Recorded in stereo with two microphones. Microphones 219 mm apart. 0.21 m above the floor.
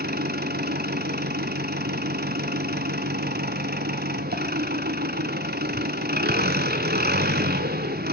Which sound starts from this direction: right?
An engine running, at 0.0 s.